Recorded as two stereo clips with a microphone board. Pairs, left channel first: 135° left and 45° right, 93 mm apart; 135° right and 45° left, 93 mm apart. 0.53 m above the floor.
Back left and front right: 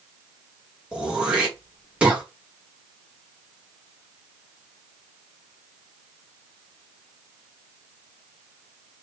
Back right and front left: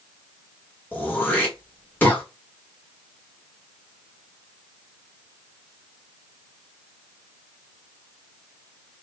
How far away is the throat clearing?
About 1.1 m.